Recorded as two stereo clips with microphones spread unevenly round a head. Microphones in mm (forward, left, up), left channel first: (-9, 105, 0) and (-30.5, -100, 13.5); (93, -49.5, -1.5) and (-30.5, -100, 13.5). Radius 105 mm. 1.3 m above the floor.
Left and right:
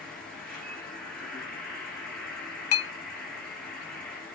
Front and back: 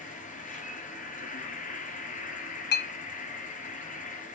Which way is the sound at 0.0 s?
5° right.